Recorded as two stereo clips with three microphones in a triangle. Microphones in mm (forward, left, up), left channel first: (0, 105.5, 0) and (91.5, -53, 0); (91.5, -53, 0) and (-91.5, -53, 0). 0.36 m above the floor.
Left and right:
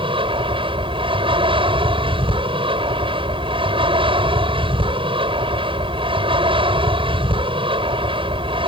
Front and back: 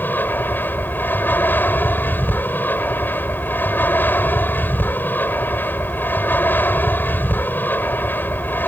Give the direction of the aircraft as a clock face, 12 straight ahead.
2 o'clock.